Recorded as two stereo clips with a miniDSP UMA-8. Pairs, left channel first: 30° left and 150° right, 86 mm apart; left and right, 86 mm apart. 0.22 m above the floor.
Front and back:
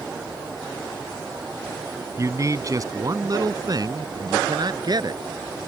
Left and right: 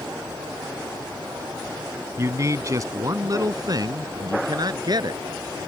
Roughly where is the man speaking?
Behind right.